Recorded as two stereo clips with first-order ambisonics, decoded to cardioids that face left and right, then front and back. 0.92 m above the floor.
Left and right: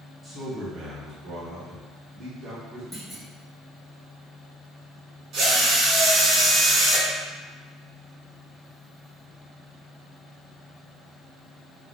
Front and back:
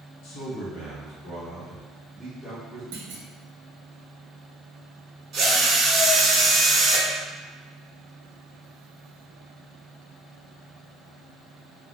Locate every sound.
0.2 s a man speaking: 5° right, 0.8 m; by 2.8 s 80° right, 1.6 m
2.9 s a clunk: 175° right, 0.7 m
5.3 s a drill: 130° right, 0.8 m